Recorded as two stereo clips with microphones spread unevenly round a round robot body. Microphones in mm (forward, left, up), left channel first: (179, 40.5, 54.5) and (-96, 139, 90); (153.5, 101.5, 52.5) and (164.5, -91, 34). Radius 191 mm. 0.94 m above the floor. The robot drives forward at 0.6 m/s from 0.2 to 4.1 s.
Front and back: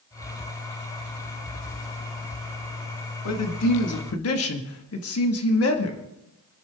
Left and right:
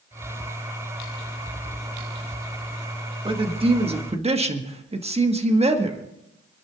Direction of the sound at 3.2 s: 25° right.